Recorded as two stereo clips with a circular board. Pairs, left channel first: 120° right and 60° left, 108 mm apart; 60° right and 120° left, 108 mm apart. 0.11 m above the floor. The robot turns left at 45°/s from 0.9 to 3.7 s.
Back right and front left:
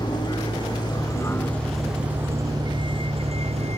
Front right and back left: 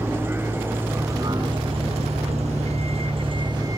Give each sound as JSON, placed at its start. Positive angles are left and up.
{"t": 0.0, "sound": "a vehicle", "azimuth_deg": -170}